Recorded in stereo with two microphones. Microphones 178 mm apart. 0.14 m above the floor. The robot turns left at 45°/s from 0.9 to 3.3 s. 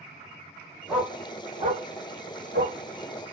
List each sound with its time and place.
0.9 s a dog barking: 5° right (ahead or behind), 1.4 m; by 2.8 s 80° right, 1.4 m